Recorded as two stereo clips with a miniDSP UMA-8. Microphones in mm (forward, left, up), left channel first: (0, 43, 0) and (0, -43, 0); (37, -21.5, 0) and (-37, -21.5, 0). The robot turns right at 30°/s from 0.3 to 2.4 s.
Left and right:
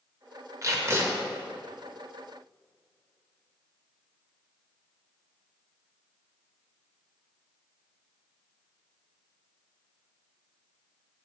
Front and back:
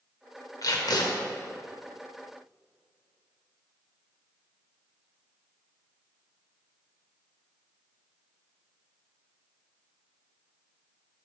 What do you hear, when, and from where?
0.6 s tape being pulled: 40° right, 0.9 m; by 1.1 s 25° right, 0.9 m